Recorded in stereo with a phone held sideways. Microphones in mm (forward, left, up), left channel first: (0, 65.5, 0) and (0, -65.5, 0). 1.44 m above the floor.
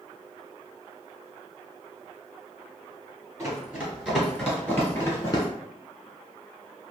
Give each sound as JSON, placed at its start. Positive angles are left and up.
{"t": 3.4, "sound": "running footsteps", "side_deg": -20, "distance_m": 1.7}